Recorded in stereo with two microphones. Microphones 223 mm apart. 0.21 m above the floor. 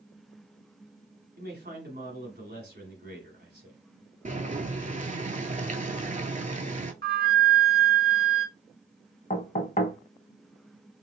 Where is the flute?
50° right (ahead or behind), 0.6 m.